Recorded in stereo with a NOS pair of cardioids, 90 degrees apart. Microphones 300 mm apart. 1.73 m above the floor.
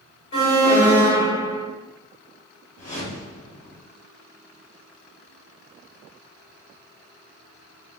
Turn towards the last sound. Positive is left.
turn(degrees=25)